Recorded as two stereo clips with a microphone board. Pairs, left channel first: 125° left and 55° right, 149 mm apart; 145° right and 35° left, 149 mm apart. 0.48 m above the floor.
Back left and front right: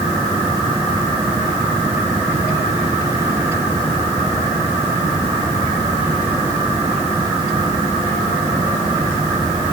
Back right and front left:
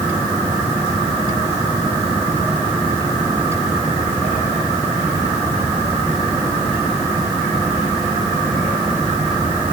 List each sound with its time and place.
Only background noise.